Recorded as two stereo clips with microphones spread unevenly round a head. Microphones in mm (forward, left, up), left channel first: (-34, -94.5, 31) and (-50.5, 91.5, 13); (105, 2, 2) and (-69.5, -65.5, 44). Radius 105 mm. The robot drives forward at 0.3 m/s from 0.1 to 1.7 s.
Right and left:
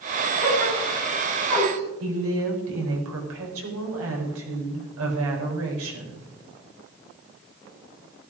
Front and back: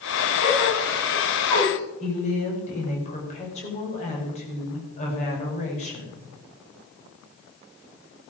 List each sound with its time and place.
0.4 s a gasp: 35° left, 7 m; by 1.8 s 40° left, 6.5 m
2.0 s a woman speaking: 80° left, 4.5 m